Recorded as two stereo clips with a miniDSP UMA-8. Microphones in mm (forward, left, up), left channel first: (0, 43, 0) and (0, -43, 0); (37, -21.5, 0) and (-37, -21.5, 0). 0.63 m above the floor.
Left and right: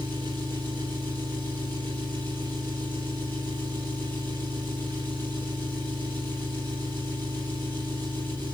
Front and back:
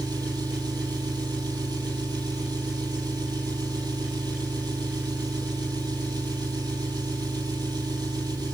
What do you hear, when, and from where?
0.0 s an engine running: 155° left, 5 m